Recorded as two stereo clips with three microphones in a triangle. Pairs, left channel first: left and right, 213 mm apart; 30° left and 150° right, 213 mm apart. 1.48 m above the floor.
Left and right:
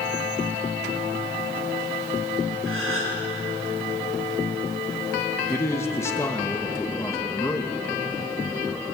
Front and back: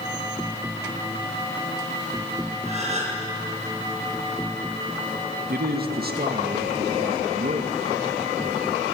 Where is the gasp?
90° right, 6.5 m.